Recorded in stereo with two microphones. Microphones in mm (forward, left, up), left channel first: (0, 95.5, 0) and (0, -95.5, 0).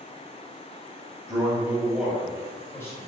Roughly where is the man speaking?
Right.